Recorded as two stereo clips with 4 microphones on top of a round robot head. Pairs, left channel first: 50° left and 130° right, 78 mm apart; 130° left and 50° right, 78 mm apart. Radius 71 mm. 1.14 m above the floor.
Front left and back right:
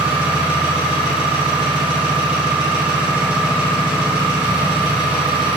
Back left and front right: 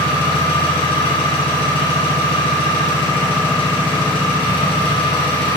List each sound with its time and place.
0.0 s an engine running: 150° left, 3 m